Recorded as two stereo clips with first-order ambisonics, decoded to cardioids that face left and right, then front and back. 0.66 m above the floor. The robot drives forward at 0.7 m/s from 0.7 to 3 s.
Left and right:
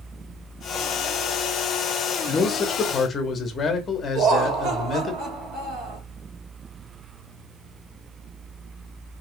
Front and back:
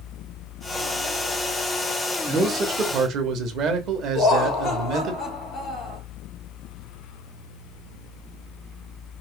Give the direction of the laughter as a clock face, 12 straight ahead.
3 o'clock.